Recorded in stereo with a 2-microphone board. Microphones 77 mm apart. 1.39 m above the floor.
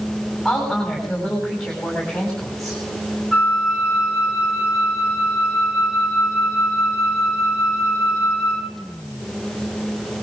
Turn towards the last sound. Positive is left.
turn(degrees=0)  # may be behind; listen again after turning